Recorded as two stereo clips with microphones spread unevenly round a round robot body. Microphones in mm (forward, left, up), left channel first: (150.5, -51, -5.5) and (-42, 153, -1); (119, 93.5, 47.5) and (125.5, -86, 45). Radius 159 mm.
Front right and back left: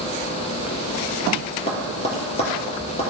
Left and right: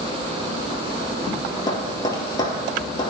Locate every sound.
1.7 s tapping: 20° left, 4 m